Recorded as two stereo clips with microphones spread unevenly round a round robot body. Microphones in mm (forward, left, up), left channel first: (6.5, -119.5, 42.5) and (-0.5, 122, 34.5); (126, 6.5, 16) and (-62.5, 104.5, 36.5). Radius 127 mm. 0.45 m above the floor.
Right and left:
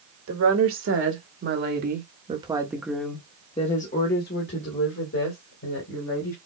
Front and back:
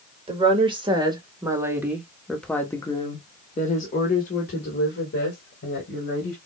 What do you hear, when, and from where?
0.3 s a woman speaking: 90° left, 1.7 m; by 6.4 s 70° right, 2 m